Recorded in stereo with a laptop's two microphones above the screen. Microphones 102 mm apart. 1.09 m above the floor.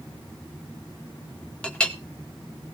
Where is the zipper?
I don't hear a zipper.